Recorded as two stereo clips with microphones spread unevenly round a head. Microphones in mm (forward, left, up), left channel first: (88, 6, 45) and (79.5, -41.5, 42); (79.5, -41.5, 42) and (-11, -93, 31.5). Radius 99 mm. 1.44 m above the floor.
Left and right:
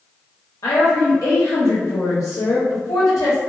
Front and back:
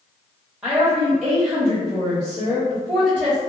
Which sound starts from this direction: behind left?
A woman speaking, at 0.6 s.